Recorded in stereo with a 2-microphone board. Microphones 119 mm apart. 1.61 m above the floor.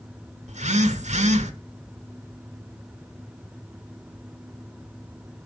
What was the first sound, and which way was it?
A phone buzzing, 70° right (ahead or behind).